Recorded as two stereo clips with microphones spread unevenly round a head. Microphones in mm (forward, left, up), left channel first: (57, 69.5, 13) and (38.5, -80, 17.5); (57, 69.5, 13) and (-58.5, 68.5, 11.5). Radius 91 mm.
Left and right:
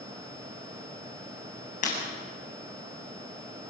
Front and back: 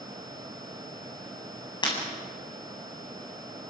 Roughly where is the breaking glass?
Ahead left.